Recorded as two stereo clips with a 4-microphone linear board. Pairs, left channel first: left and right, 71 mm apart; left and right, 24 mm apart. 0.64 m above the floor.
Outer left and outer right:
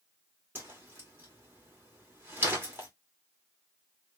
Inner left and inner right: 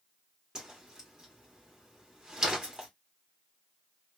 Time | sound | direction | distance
0.6 | a whoosh | 30° right (ahead or behind) | 1.8 m